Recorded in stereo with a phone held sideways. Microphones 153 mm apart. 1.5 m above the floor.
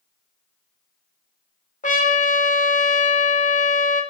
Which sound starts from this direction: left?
A trumpet, at 1.8 s.